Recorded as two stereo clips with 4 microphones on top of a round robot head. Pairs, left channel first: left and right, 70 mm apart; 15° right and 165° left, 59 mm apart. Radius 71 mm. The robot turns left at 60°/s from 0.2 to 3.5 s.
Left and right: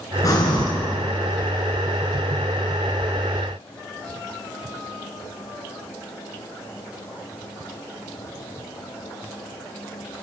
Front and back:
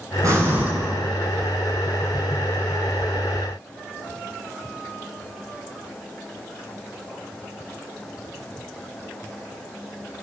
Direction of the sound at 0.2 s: 130° left.